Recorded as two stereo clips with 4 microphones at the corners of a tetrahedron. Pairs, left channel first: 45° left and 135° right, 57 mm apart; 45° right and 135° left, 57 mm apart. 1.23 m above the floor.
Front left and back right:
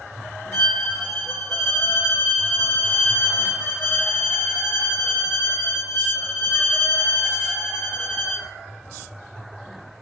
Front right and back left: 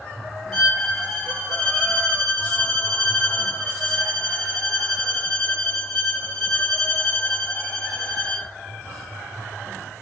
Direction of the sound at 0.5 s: 45° left.